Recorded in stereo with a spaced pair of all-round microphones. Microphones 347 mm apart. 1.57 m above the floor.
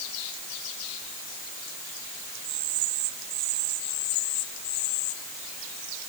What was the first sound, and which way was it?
Only background noise.